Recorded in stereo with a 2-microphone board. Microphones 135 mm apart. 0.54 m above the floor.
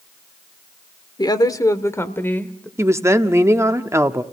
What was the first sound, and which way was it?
A woman speaking, 35° left (ahead or behind).